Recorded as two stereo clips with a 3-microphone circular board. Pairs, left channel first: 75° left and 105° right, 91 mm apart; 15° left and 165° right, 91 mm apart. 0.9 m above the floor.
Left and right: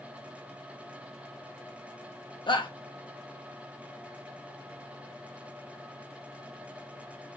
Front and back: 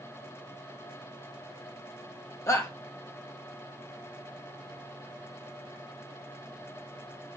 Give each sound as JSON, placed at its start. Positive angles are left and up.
{"t": 2.5, "sound": "a shout", "azimuth_deg": 65, "distance_m": 1.2}